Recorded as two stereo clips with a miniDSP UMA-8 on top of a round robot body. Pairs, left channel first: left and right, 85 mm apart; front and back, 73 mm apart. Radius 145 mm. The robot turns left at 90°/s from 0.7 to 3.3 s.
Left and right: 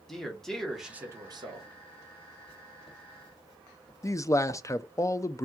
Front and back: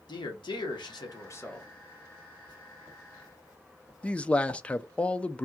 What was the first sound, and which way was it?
A man speaking, 5° left.